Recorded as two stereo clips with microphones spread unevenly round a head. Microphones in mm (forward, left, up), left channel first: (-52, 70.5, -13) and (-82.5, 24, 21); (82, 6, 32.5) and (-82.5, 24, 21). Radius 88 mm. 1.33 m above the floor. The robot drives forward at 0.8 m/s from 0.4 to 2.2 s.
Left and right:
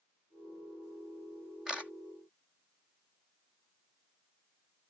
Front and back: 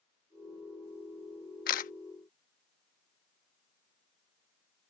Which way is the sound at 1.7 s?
45° right.